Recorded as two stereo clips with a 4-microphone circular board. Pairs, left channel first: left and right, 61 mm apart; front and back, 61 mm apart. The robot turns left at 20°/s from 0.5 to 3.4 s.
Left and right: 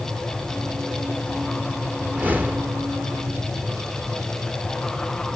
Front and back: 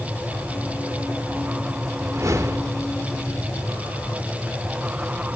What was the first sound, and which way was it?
A whoosh, 150° right.